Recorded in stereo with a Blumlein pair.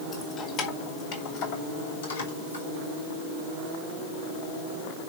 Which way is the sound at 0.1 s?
20° left.